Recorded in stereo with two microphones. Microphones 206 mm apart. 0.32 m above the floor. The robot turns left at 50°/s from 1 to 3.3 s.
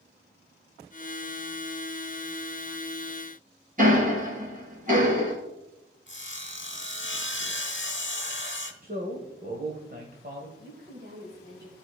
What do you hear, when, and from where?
3.8 s ticking: 35° right (ahead or behind), 2.5 m
6.1 s sawing: 60° left (ahead or behind), 0.9 m
8.8 s a man speaking: 45° right (ahead or behind), 1.3 m
10.6 s a woman speaking: 45° right (ahead or behind), 1.8 m